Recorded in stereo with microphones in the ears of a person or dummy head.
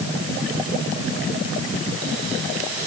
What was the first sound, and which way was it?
Only background noise.